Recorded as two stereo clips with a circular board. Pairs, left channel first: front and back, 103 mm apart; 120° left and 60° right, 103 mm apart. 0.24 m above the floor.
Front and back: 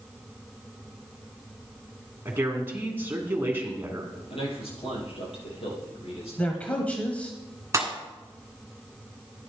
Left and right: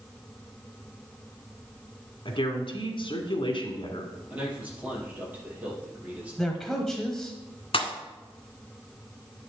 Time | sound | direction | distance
2.2 | a woman speaking | 115° left | 2.0 m
4.3 | a man speaking | 15° left | 5 m
6.4 | a man speaking | 45° left | 1.1 m
7.7 | a pop | 125° left | 1.5 m